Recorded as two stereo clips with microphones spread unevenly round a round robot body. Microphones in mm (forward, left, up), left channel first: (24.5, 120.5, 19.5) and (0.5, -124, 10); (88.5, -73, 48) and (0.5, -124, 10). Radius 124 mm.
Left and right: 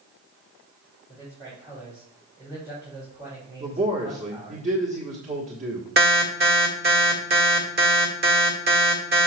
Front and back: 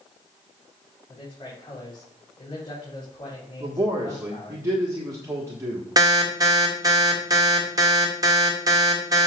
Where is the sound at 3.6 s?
140° right, 1.4 m.